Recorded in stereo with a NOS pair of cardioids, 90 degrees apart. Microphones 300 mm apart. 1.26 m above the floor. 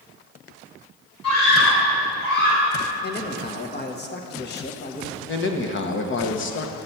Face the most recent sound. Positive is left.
turn(degrees=40)